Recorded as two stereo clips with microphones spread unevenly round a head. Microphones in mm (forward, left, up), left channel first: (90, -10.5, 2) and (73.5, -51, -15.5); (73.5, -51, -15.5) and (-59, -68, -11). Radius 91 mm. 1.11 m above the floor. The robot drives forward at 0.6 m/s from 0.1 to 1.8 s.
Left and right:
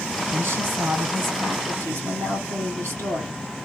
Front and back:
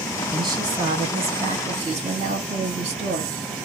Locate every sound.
0.3 s a woman speaking: 110° right, 1.8 m; by 3.4 s 135° right, 2 m